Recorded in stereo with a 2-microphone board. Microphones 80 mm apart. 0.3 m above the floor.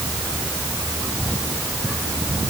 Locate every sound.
Only background noise.